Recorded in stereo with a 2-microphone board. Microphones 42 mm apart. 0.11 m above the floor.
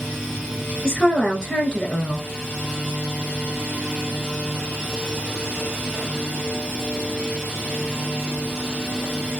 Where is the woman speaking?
15° left (ahead or behind), 1.1 m.